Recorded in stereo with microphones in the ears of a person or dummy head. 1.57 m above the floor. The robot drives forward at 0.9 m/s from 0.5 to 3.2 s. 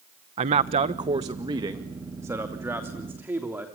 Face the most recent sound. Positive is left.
turn(degrees=-10)  # may be behind; listen again after turning